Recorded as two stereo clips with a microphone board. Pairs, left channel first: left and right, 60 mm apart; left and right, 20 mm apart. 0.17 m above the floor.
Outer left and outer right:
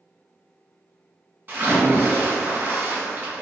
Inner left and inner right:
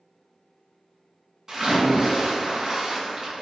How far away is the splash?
About 1.5 m.